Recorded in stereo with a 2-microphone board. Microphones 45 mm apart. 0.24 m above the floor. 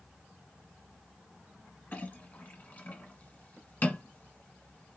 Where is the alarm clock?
I don't hear an alarm clock.